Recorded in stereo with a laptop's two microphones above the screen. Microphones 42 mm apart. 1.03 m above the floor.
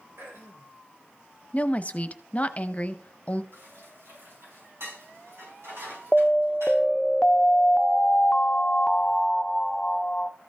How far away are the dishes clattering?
About 5 m.